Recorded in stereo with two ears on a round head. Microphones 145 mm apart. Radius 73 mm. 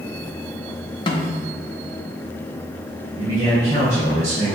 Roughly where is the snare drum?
Left.